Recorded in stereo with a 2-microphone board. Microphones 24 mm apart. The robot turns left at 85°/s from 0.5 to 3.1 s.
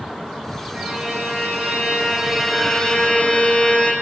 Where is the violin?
25° right, 8 m; by 3.9 s 135° left, 8 m.